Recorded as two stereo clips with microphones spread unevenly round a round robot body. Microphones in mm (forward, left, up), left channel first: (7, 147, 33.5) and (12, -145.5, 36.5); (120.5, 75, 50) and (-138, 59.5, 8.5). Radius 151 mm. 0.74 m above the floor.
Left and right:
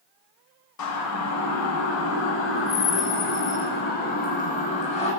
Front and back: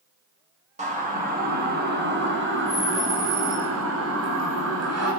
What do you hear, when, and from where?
0.8 s a siren: 120° left, 6 m; by 5.1 s 160° left, 8 m